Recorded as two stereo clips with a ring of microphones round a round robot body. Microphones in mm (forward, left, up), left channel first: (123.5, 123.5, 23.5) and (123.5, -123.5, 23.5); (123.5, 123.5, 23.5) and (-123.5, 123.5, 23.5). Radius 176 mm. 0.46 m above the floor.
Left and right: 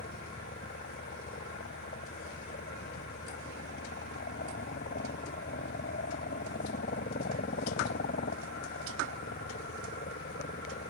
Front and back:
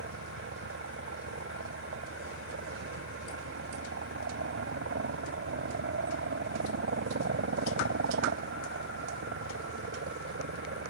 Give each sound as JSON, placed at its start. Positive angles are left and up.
{"t": 0.0, "sound": "a helicopter", "azimuth_deg": 150}